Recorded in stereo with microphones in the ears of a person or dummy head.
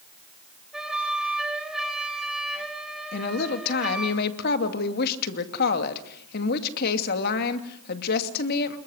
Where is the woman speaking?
50° left (ahead or behind), 2.5 m.